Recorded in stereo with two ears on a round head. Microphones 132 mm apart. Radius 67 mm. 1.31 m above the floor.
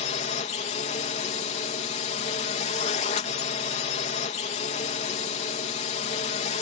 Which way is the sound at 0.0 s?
45° left (ahead or behind).